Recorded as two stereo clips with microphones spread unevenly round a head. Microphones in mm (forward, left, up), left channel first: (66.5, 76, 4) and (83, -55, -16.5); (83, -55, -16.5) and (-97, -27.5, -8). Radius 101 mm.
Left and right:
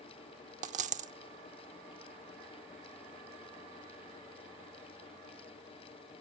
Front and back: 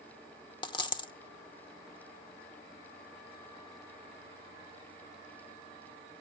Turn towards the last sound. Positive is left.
turn(degrees=-70)